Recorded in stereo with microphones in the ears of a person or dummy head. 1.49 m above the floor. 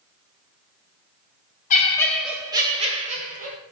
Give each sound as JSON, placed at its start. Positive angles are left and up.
{"t": 1.7, "sound": "laughter", "side_deg": 40, "distance_m": 0.6}